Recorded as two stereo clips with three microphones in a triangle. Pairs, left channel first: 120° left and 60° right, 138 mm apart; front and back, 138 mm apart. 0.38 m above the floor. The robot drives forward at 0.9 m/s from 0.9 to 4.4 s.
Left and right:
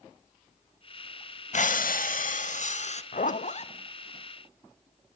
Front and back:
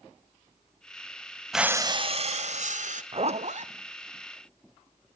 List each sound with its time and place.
1.5 s breathing: 90° left, 0.6 m; by 3.0 s 155° left, 1.5 m
3.1 s a zipper: 135° left, 0.7 m; by 3.7 s 155° left, 1.1 m